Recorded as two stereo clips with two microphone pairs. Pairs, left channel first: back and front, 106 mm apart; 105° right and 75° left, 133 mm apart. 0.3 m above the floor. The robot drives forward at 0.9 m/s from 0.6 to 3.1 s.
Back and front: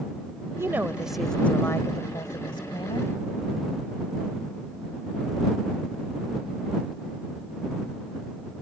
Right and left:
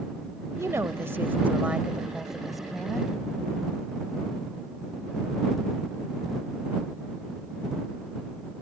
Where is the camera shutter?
I don't hear a camera shutter.